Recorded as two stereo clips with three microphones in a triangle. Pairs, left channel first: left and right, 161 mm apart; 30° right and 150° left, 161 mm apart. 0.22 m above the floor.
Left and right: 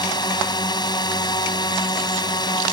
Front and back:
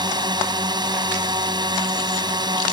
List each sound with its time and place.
0.0 s a drone: 120° left